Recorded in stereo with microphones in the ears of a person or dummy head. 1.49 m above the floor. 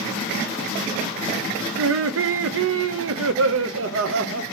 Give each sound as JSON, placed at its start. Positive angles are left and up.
{"t": 1.8, "sound": "laughter", "side_deg": -70, "distance_m": 0.8}